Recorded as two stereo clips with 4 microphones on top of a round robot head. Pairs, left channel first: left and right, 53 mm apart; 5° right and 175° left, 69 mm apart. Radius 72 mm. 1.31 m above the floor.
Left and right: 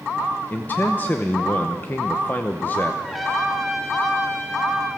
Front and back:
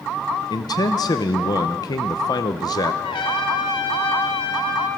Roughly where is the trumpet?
Ahead.